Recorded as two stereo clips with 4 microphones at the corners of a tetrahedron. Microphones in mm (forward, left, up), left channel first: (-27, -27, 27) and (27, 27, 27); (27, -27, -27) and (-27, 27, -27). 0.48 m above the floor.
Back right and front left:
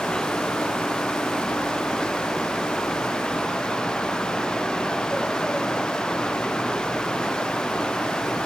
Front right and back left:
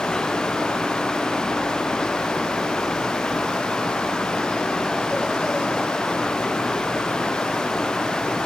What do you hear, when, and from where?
Only background noise.